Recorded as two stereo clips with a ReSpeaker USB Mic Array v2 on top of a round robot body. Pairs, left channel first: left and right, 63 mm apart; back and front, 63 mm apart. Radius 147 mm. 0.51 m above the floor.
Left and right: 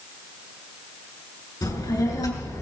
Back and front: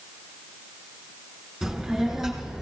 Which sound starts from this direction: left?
A child speaking, at 1.6 s.